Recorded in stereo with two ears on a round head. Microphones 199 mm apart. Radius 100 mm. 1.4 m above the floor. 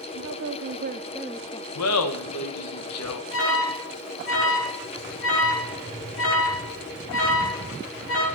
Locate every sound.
0.1 s a woman speaking: 75° right (ahead or behind), 1.1 m; by 1.6 s 25° left (ahead or behind), 0.8 m
1.8 s laughter: 85° left, 1.6 m
3.3 s an alarm: 60° left (ahead or behind), 3.5 m